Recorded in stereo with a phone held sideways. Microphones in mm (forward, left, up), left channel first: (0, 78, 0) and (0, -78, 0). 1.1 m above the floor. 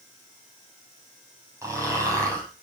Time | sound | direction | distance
1.6 | snoring | 20° right (ahead or behind) | 7.5 m